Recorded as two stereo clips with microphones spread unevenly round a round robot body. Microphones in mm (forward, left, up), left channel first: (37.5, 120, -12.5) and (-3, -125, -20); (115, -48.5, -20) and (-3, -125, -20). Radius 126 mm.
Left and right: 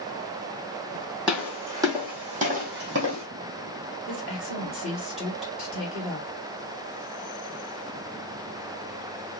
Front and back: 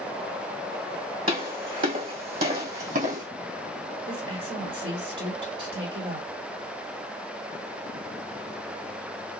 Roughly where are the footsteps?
Behind.